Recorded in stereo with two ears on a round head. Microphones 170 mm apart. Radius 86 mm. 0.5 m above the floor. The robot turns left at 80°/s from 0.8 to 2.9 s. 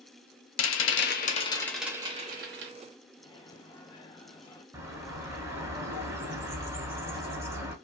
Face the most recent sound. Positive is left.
turn(degrees=-15)  # may be behind; listen again after turning